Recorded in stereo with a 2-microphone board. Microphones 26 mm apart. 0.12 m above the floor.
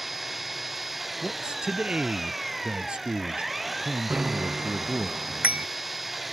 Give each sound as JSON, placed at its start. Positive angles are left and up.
{"t": 0.0, "sound": "an engine running", "side_deg": -5}
{"t": 1.2, "sound": "a man speaking", "side_deg": -40}
{"t": 4.1, "sound": "a bicycle bell", "side_deg": -80}